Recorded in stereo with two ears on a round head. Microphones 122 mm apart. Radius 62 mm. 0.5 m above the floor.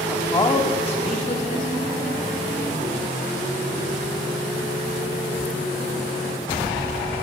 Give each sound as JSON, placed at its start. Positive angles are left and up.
{"t": 0.1, "sound": "a man speaking", "side_deg": 10, "distance_m": 0.8}